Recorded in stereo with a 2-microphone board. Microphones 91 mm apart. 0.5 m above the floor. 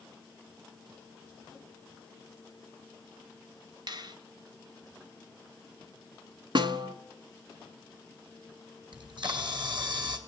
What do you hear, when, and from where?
3.9 s a finger snap: 55° right (ahead or behind), 1.7 m
6.5 s a snare drum: 60° right (ahead or behind), 1.3 m
8.9 s a camera shutter: 55° right (ahead or behind), 3.5 m